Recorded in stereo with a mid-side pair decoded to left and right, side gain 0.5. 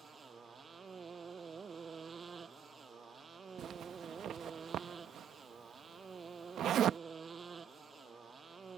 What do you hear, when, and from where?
0.0 s a motorcycle: 35° right
3.6 s a zipper: 60° right